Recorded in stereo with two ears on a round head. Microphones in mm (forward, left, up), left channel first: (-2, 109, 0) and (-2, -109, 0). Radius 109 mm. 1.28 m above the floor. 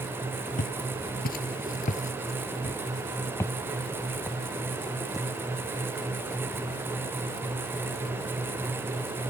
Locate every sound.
0.6 s footsteps: 35° left (ahead or behind); by 8.7 s 5° right (ahead or behind)